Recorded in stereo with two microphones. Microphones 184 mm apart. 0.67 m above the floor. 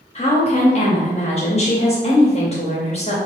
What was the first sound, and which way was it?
A woman speaking, 35° left (ahead or behind).